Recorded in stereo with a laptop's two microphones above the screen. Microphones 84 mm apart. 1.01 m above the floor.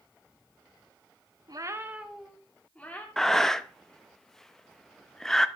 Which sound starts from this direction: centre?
Breathing, at 3.2 s.